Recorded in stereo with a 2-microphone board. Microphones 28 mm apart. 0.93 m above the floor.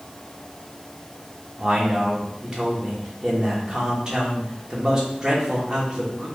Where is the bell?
I don't hear a bell.